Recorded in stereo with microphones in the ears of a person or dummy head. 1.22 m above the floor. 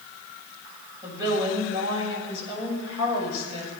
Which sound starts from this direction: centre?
A woman speaking, at 1.0 s.